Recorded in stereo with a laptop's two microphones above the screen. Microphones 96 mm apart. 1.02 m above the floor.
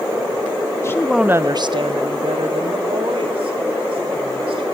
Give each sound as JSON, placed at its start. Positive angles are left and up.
{"t": 0.8, "sound": "a woman speaking", "side_deg": 30, "distance_m": 0.6}